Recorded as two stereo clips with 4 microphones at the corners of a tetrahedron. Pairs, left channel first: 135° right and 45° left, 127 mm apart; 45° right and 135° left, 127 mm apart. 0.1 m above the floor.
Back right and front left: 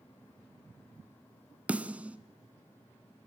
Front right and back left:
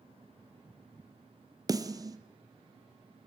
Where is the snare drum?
115° left, 1.3 m.